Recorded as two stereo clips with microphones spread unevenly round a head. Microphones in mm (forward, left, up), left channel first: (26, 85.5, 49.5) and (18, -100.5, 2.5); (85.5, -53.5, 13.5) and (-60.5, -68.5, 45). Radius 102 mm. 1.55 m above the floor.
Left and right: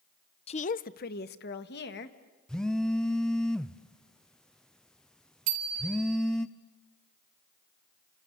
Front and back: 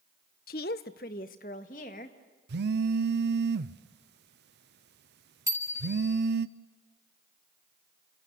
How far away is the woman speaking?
About 0.5 m.